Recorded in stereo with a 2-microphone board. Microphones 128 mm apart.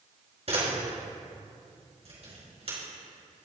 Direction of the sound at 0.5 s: 55° right (ahead or behind).